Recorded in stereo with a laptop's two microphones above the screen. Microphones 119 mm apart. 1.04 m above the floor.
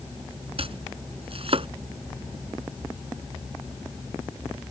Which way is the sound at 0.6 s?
55° right (ahead or behind).